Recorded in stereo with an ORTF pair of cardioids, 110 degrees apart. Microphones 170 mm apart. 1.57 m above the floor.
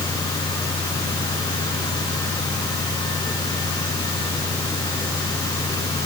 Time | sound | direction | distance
0.0 | a fan | 20° left | ?